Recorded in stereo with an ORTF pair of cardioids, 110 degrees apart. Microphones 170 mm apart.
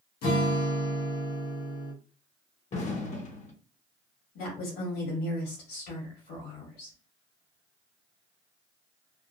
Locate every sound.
0.2 s a guitar: 70° left, 1.2 m
2.7 s an explosion: 45° left, 1.0 m
4.3 s a woman speaking: 70° left, 1.9 m